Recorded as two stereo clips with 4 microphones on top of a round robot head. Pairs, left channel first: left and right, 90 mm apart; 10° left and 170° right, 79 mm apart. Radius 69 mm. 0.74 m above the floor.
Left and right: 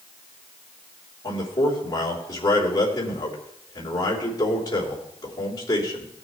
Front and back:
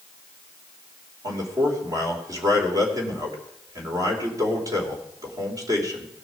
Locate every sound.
1.2 s a man speaking: 150° left, 3.5 m